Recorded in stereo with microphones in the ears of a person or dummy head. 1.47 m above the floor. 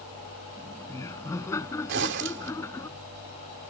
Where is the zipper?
75° right (ahead or behind).